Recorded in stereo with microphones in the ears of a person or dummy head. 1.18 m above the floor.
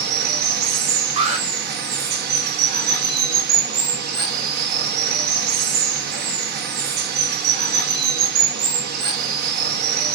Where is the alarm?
45° right (ahead or behind), 1.3 m.